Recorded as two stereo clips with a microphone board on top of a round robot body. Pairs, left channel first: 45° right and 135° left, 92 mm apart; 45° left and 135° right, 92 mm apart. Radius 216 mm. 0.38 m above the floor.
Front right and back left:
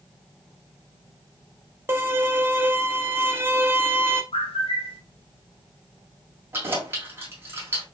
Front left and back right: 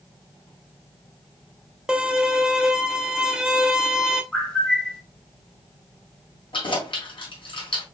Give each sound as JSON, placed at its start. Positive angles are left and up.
{"t": 1.9, "sound": "a violin", "azimuth_deg": 155, "distance_m": 1.1}
{"t": 4.3, "sound": "a bird", "azimuth_deg": -40, "distance_m": 1.4}
{"t": 6.5, "sound": "keys jangling", "azimuth_deg": 70, "distance_m": 2.0}